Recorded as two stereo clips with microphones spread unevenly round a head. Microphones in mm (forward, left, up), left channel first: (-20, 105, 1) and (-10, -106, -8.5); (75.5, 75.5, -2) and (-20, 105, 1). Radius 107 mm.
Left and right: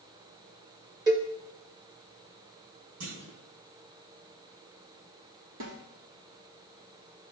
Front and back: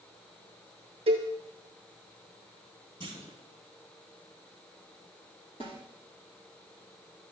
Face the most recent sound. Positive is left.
turn(degrees=-75)